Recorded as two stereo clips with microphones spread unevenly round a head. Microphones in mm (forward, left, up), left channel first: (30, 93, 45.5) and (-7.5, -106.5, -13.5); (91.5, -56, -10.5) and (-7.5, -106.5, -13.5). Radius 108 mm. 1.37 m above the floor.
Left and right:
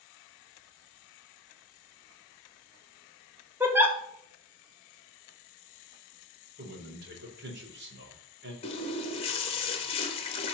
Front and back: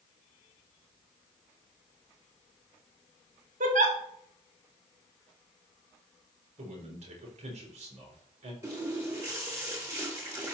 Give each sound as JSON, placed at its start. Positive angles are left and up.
{"t": 3.6, "sound": "a giggle", "azimuth_deg": 180, "distance_m": 1.5}
{"t": 6.6, "sound": "a man speaking", "azimuth_deg": -145, "distance_m": 4.0}
{"t": 8.6, "sound": "a running tap", "azimuth_deg": 135, "distance_m": 1.2}